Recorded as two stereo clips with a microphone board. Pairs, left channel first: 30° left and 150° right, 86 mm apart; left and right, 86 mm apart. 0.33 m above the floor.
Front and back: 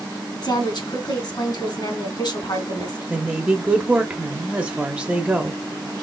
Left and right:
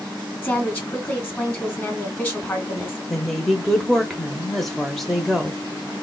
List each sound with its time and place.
0.4 s a woman speaking: 25° left, 2 m
3.1 s a woman speaking: 170° left, 0.8 m